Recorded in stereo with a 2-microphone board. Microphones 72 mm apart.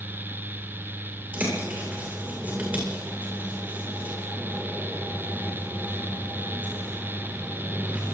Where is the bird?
20° right (ahead or behind), 9 m.